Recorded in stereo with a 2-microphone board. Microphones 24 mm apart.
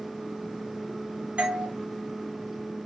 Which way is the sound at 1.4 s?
60° right (ahead or behind).